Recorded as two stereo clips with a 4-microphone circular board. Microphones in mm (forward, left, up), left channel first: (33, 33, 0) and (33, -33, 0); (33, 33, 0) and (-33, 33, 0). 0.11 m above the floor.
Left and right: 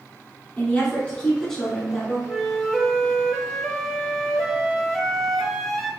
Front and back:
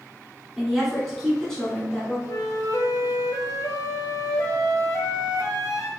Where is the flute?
5° left, 0.7 m.